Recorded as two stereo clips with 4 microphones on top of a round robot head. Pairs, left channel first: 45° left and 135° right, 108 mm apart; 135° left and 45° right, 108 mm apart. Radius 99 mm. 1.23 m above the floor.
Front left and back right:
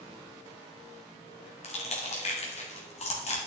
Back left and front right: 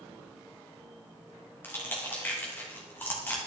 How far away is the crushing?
About 2 m.